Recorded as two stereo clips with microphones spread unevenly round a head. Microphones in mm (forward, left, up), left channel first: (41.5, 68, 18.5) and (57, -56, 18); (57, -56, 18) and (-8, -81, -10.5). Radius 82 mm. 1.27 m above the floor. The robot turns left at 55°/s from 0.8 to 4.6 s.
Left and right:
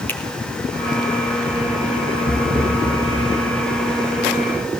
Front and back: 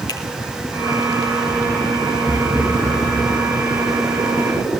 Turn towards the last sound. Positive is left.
turn(degrees=-5)